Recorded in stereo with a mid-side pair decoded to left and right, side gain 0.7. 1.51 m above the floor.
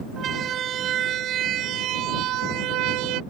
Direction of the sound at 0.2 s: 40° right.